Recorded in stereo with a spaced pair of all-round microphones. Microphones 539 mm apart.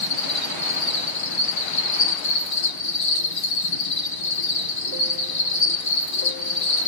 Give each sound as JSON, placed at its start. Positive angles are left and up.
{"t": 0.0, "sound": "an insect", "side_deg": 75, "distance_m": 1.5}